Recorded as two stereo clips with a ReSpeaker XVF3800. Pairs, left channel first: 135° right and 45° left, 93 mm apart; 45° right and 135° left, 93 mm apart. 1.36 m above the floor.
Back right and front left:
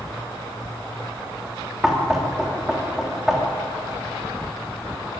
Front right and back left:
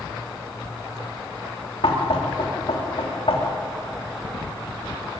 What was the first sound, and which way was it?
Knocking, 40° right.